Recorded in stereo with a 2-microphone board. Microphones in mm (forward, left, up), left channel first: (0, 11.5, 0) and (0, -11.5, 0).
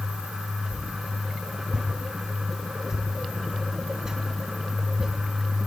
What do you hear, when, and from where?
0.7 s a whoosh: 25° right (ahead or behind), 3.5 m